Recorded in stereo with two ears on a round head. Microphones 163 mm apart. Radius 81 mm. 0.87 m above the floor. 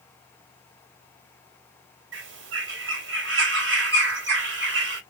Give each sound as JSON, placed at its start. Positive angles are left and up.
{"t": 2.1, "sound": "a bird", "side_deg": -75, "distance_m": 2.0}